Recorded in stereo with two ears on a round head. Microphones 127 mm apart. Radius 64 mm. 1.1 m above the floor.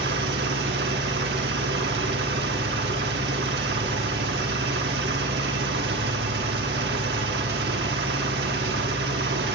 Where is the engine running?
85° right, 1.7 m.